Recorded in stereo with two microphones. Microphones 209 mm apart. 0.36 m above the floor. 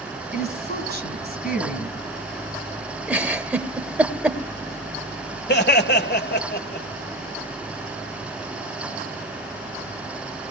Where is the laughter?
55° left (ahead or behind), 1.6 m.